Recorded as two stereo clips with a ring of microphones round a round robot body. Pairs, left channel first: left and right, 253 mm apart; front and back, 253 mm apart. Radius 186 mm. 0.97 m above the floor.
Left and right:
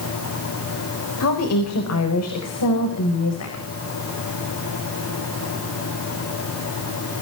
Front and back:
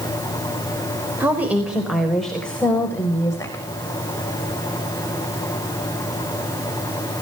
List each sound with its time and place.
1.2 s a woman speaking: 100° left, 4 m; by 3.6 s 75° left, 4.5 m